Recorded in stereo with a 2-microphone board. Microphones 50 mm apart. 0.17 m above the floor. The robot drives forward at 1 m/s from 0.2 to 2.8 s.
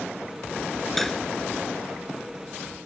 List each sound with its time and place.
1.0 s cutlery clinking: 5° left (ahead or behind)